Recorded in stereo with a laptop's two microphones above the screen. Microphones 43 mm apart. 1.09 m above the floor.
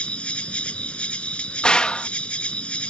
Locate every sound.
0.0 s an insect: 30° left (ahead or behind)
1.6 s a gunshot: 20° left (ahead or behind)